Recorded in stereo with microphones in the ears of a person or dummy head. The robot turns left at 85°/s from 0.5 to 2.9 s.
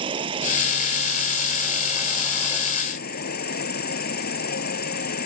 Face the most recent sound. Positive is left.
turn(degrees=125)